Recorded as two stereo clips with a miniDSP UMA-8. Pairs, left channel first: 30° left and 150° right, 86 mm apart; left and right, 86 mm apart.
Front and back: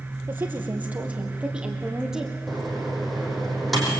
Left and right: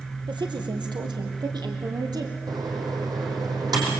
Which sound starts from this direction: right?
A woman speaking, at 0.3 s.